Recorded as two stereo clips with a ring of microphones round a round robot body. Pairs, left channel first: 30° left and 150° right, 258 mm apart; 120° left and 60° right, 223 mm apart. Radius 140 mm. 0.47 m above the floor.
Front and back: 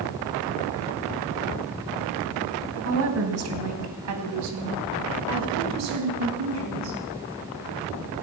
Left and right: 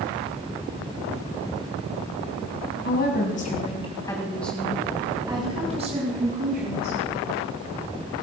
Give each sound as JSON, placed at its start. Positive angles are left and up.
{"t": 2.9, "sound": "a woman speaking", "azimuth_deg": 170, "distance_m": 3.0}